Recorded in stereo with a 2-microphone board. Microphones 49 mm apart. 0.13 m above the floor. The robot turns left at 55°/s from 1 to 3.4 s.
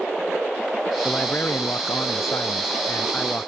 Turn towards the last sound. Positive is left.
turn(degrees=30)